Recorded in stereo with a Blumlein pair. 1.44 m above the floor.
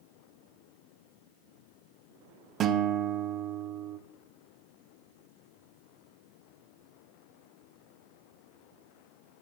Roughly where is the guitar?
Ahead right.